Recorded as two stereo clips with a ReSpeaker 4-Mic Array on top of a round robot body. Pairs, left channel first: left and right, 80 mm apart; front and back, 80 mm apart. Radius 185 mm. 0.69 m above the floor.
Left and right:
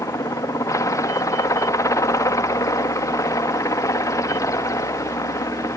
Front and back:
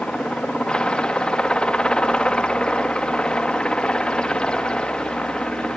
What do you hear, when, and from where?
0.0 s a helicopter: 75° left